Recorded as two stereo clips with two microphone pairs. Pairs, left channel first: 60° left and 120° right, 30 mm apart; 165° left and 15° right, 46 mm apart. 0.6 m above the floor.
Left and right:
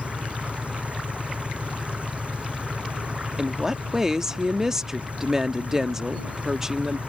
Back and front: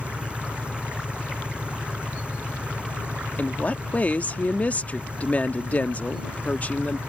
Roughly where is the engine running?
Right.